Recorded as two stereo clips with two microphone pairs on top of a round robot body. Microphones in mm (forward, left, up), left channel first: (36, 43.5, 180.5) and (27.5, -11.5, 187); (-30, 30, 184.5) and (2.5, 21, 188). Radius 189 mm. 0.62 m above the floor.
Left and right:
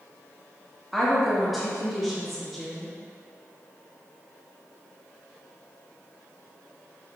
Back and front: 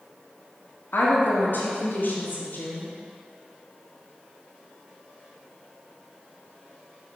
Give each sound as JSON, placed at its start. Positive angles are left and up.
{"t": 0.9, "sound": "a woman speaking", "azimuth_deg": 170, "distance_m": 1.5}